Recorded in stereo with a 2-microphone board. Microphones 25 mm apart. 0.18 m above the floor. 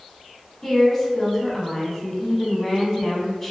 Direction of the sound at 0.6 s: 10° left (ahead or behind).